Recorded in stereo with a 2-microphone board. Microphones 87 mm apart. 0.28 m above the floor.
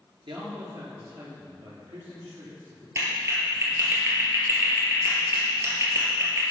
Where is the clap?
30° right (ahead or behind), 4 m.